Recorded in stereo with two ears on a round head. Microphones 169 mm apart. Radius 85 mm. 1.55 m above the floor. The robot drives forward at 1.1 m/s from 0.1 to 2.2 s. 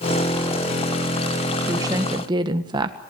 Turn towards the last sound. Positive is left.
turn(degrees=-20)  # may be behind; listen again after turning